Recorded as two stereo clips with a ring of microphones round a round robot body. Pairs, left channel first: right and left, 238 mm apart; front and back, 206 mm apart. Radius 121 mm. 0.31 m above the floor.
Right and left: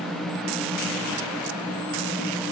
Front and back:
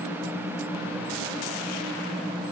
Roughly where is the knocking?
I don't hear knocking.